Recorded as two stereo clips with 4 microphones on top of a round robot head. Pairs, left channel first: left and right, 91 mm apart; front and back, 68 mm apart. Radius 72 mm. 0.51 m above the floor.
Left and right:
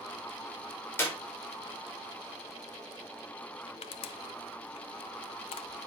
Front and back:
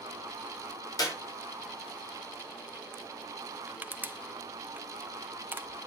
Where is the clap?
25° left, 5 m.